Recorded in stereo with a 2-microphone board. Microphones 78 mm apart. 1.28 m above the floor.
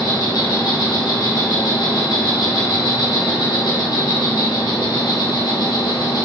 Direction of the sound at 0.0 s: 60° left (ahead or behind).